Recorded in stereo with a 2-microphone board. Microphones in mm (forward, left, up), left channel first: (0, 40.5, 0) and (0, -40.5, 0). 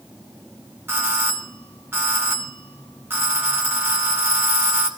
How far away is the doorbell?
About 2 m.